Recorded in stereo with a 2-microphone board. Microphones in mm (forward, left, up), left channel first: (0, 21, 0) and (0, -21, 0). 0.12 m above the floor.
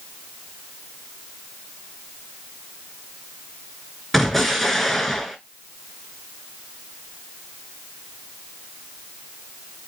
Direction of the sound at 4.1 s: 5° left (ahead or behind).